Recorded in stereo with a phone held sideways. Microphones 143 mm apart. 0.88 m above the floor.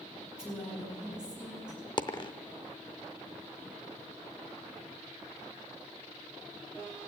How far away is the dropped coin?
About 0.6 m.